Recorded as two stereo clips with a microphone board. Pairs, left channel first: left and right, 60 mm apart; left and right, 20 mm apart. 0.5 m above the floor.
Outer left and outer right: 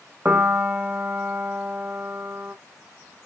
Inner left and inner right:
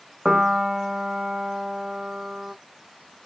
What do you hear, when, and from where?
0.2 s a piano: 30° right (ahead or behind), 0.6 m